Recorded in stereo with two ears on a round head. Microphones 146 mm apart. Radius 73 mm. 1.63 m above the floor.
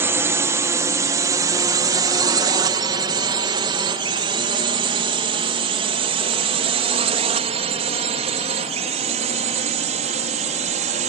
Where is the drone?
15° right (ahead or behind); by 11.1 s 45° right (ahead or behind).